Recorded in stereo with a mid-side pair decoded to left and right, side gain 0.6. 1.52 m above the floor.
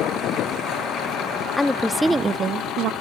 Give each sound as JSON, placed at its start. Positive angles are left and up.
{"t": 1.6, "sound": "a woman speaking", "azimuth_deg": 10, "distance_m": 0.8}